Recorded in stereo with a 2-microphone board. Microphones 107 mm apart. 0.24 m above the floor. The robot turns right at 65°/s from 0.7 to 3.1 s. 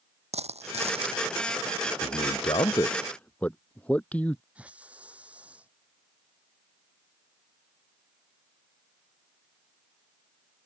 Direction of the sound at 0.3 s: 85° right.